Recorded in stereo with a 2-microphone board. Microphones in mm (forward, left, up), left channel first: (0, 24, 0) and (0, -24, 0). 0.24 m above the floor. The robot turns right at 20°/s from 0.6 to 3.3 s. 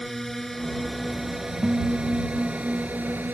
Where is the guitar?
135° right; by 3.2 s 100° right.